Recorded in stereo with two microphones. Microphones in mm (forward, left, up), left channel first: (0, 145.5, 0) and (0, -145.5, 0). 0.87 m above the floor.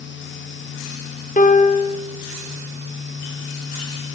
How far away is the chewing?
No chewing in this recording.